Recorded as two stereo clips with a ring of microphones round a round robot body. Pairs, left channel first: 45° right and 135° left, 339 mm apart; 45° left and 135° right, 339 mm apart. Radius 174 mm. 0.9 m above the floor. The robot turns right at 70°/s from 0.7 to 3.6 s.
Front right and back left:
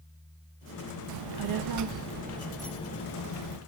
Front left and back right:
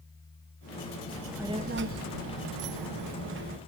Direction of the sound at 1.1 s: 120° left.